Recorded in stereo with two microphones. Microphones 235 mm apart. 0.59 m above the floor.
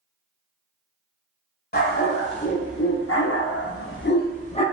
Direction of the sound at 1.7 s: 40° left (ahead or behind).